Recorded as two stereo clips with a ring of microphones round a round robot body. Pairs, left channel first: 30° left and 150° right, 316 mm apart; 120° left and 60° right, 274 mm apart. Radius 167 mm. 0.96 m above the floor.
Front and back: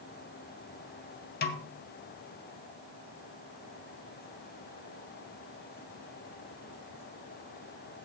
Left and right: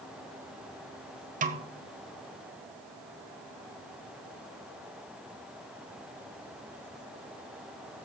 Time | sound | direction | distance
1.4 | a snare drum | 15° right | 0.6 m